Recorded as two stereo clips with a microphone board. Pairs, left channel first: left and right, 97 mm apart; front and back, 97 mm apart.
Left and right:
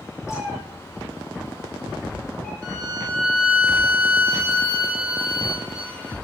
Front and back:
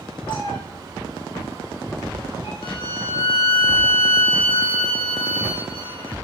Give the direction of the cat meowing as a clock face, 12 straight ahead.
11 o'clock.